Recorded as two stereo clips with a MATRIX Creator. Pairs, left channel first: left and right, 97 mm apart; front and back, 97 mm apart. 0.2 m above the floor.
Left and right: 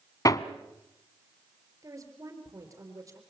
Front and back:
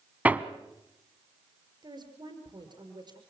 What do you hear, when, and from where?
0.2 s hammering: 110° left, 1.0 m
1.8 s a woman speaking: 145° right, 4.5 m